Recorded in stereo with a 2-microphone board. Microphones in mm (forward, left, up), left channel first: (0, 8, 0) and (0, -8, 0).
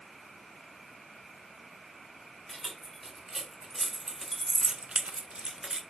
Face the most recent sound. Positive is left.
turn(degrees=-45)  # may be behind; listen again after turning